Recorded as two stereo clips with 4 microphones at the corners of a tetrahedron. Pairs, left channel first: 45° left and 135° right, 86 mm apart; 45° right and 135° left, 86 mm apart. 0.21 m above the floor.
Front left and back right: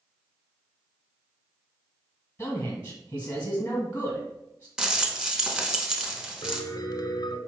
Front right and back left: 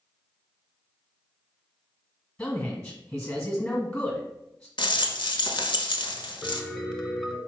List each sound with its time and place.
2.4 s a man speaking: 15° left, 1.4 m
4.8 s a rattle: 55° right, 0.5 m
6.4 s a piano: 35° left, 0.6 m